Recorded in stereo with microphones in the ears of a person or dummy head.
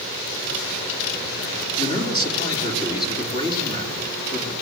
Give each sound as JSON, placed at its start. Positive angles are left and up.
{"t": 1.8, "sound": "a man speaking", "side_deg": 20, "distance_m": 3.5}